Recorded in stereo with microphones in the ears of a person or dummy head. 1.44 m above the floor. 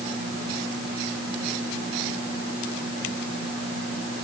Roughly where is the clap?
I don't hear a clap.